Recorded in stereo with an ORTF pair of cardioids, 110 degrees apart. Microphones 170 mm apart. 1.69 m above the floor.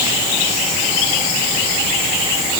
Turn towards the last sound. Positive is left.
No sound to turn to.